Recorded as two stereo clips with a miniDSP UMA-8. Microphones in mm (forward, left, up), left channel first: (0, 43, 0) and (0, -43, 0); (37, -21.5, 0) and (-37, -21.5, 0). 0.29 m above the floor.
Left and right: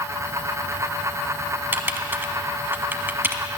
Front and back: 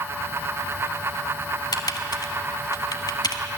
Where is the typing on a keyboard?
25° right, 0.9 m.